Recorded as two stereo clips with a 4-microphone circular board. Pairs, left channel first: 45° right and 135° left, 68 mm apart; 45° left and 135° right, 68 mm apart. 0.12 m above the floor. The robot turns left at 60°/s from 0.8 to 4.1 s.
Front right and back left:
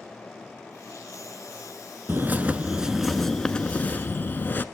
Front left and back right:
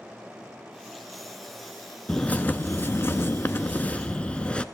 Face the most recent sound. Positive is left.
turn(degrees=-10)